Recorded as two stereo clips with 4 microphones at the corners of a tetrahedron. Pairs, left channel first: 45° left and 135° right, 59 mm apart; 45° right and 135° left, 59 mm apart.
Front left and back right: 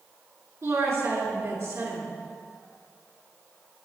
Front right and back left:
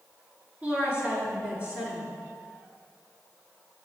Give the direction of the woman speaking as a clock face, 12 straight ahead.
5 o'clock.